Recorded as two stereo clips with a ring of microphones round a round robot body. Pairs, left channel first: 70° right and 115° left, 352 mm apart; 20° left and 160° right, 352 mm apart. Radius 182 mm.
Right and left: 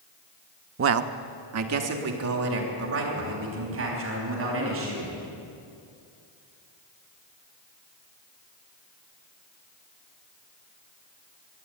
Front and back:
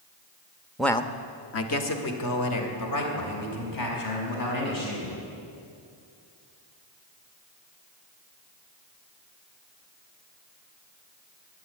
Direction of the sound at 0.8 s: 120° left.